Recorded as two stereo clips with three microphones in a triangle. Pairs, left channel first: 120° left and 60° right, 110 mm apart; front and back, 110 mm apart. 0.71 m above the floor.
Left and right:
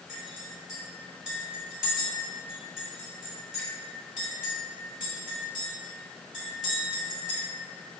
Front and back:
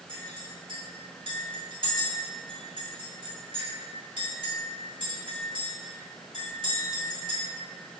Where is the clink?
145° right, 1.9 m.